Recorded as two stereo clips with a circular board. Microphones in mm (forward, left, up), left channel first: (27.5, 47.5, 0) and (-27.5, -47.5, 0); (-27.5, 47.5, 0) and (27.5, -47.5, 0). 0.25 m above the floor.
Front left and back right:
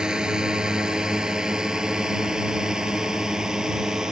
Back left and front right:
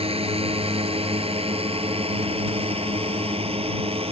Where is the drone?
35° right.